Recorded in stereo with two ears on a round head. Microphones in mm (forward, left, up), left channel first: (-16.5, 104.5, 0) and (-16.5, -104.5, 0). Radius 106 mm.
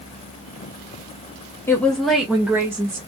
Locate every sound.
1.7 s a woman speaking: 10° left (ahead or behind), 0.8 m; by 3.0 s 15° right (ahead or behind), 1.3 m